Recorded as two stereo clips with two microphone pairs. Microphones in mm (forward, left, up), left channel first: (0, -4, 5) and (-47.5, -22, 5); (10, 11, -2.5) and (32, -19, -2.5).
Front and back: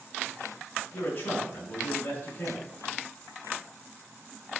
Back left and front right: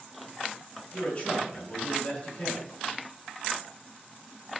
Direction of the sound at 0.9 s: 60° left.